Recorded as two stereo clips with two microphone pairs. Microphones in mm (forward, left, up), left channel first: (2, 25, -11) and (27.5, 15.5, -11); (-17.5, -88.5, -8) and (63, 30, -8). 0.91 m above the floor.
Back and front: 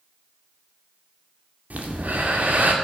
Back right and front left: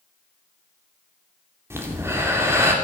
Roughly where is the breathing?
Ahead.